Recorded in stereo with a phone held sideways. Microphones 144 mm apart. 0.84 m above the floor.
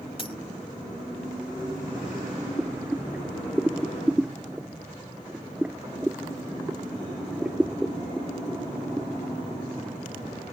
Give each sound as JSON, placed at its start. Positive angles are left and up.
{"t": 0.2, "sound": "a dropped coin", "side_deg": 40}
{"t": 2.6, "sound": "boiling", "side_deg": -10}